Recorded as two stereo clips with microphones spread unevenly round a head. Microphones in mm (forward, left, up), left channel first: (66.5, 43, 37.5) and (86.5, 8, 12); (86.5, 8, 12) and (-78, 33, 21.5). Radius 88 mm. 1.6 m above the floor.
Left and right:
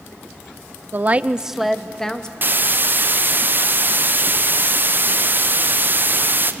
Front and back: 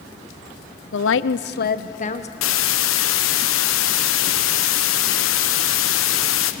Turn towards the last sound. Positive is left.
turn(degrees=-20)